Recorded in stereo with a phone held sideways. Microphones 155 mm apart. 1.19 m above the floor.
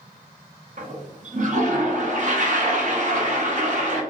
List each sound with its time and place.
0.8 s a toilet flushing: 55° right (ahead or behind), 0.6 m